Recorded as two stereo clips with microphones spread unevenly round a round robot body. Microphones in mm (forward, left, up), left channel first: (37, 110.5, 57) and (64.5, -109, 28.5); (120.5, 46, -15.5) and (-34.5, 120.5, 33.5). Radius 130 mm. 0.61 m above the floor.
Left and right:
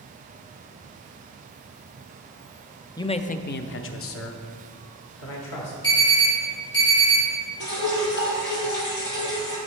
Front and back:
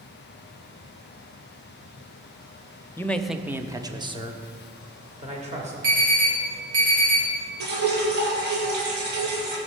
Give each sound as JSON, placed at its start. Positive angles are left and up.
{"t": 3.0, "sound": "a man speaking", "azimuth_deg": 20, "distance_m": 0.7}
{"t": 5.8, "sound": "an alarm", "azimuth_deg": 170, "distance_m": 4.0}
{"t": 7.6, "sound": "dripping", "azimuth_deg": 145, "distance_m": 3.0}